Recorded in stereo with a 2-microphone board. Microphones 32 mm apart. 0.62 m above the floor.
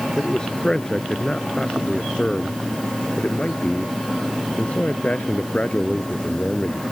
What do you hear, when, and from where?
0.2 s a man speaking: 20° left (ahead or behind); by 6.8 s 50° left (ahead or behind)